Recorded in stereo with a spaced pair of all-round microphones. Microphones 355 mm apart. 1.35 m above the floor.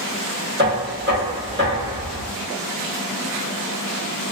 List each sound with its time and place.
0.6 s knocking: 30° right (ahead or behind), 1.1 m